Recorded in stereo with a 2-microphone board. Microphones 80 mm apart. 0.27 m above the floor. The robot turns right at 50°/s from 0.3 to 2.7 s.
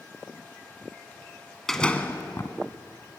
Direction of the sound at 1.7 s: 5° left.